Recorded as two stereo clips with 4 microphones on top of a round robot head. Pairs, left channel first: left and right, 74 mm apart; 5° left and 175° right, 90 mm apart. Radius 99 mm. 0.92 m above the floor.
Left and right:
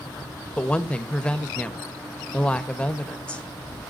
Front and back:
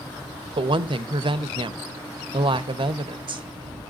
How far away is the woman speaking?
About 1.2 m.